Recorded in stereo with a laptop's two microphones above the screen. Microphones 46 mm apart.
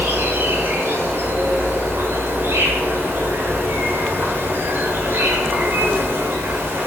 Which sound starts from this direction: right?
An insect, at 0.0 s.